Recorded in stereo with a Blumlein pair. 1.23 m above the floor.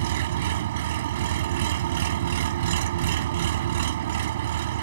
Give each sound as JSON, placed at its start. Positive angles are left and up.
{"t": 0.0, "sound": "an engine running", "azimuth_deg": -55}